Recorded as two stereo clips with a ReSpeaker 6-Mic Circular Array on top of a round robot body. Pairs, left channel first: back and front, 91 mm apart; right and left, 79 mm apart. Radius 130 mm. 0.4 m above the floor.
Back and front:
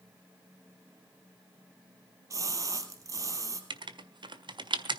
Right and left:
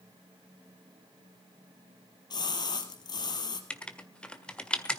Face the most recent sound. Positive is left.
turn(degrees=-15)